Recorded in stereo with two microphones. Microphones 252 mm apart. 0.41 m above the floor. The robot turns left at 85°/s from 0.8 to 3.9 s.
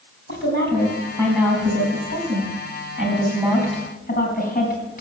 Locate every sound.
0.3 s a woman speaking: 45° left (ahead or behind), 4 m; by 5.0 s 35° left (ahead or behind), 4 m